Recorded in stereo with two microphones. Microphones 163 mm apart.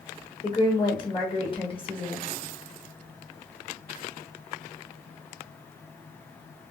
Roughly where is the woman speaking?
Left.